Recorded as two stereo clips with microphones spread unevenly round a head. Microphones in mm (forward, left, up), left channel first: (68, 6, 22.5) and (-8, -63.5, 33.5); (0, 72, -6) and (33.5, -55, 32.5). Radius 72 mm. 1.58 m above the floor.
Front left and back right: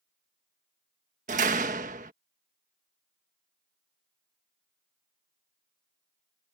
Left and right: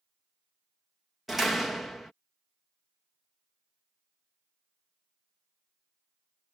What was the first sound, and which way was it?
A door slam, 160° right.